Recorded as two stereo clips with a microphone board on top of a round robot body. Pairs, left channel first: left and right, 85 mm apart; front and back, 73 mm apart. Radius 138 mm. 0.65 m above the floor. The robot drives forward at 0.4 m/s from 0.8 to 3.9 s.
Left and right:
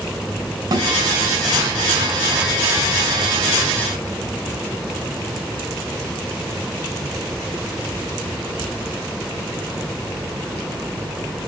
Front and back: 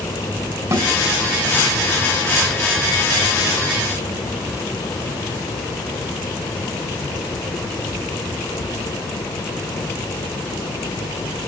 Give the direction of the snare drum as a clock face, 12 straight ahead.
5 o'clock.